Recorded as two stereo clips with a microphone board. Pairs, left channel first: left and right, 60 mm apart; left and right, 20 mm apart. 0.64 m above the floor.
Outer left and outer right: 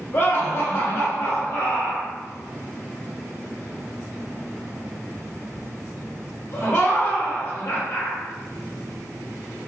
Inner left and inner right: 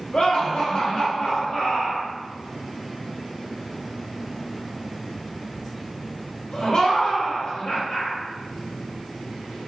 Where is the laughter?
50° left (ahead or behind), 1.1 m.